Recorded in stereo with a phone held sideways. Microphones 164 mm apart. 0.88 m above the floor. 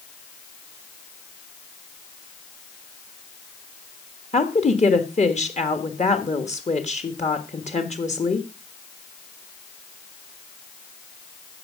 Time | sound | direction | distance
4.3 | a woman speaking | 45° left (ahead or behind) | 1.5 m